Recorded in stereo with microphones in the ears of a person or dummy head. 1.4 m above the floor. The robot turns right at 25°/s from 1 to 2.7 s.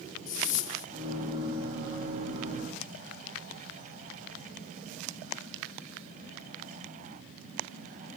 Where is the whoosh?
45° left (ahead or behind).